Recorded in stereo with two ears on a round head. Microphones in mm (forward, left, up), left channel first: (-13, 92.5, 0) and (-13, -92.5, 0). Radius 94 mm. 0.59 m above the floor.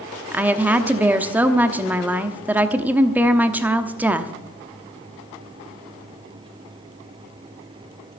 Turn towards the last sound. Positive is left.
turn(degrees=-10)  # may be behind; listen again after turning